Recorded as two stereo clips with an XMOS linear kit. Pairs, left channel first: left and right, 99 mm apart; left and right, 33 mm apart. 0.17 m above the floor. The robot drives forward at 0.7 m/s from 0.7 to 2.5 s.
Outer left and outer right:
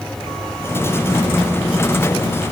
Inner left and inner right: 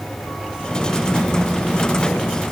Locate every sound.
Only background noise.